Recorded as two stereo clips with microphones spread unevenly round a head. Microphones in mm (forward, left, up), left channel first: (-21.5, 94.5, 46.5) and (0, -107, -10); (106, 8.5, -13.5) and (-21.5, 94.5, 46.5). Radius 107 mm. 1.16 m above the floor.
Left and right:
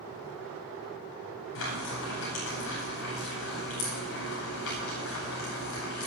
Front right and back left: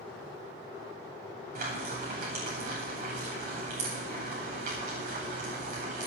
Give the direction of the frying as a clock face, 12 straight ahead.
8 o'clock.